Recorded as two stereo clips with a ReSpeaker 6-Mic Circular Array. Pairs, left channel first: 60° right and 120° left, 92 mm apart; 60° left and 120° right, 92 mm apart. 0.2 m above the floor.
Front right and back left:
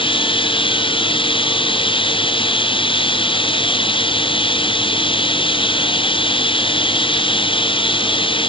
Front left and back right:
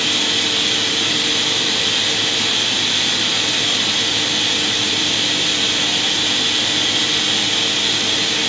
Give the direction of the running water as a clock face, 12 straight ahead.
1 o'clock.